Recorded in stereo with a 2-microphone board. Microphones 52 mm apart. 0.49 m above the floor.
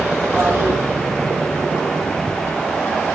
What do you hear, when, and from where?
0.3 s a toilet flushing: 40° right (ahead or behind), 2.5 m